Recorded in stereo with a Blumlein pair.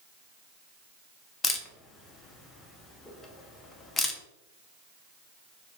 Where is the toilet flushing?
No toilet flushing in this recording.